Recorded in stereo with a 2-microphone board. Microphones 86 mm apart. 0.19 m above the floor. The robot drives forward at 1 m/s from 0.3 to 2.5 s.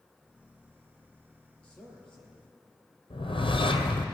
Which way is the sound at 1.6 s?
15° left (ahead or behind).